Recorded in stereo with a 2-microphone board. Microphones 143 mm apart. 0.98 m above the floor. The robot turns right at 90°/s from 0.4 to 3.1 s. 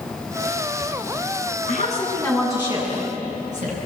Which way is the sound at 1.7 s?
105° left.